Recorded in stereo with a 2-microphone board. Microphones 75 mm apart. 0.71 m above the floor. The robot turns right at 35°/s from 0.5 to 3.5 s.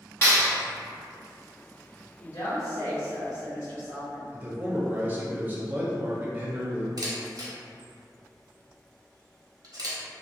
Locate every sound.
0.2 s a clap: 30° left (ahead or behind), 1.7 m
2.2 s a woman speaking: 90° left, 1.9 m; by 4.2 s 135° left, 1.9 m
4.3 s a man speaking: 25° right (ahead or behind), 0.8 m
7.0 s a camera shutter: 55° right (ahead or behind), 0.7 m